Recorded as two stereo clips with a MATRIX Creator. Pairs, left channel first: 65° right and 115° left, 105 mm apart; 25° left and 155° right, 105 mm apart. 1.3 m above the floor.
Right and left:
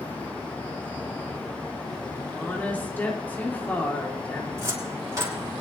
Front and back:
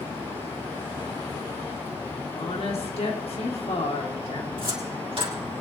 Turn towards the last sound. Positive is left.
turn(degrees=170)